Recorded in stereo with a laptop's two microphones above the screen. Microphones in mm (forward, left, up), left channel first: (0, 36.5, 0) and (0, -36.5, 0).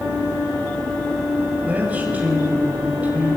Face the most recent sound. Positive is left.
turn(degrees=-20)  # may be behind; listen again after turning